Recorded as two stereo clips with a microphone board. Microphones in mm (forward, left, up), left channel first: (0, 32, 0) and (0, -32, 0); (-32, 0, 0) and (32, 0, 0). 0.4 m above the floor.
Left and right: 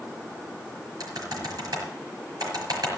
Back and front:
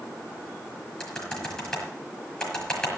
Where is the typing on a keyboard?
100° right, 5.5 m.